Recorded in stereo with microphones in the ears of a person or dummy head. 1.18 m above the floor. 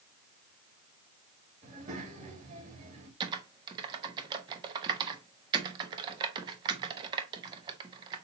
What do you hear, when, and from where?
1.6 s a child speaking: 40° right (ahead or behind), 3 m
3.2 s typing on a keyboard: 20° right (ahead or behind), 0.8 m